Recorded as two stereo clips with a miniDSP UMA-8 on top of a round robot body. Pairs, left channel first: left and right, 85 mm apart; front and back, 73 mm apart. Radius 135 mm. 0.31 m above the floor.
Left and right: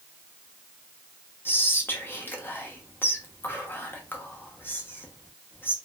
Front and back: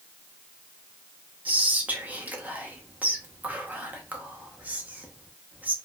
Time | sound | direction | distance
1.4 | whispering | 130° left | 1.0 m